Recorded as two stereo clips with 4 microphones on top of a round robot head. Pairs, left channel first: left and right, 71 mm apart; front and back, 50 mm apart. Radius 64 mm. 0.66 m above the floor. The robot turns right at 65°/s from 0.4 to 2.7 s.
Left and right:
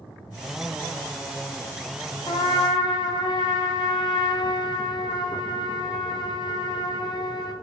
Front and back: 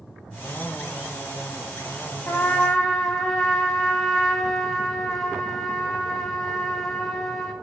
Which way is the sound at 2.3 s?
60° left.